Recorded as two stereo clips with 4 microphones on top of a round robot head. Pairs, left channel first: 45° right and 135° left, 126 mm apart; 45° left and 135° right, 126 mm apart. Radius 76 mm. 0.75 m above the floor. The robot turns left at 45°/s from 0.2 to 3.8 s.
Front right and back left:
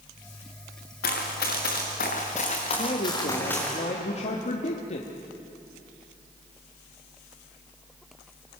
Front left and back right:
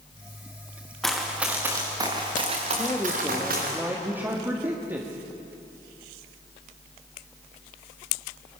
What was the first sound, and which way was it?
Running footsteps, 40° right.